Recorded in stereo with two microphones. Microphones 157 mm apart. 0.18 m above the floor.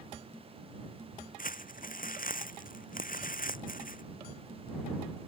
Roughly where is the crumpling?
Left.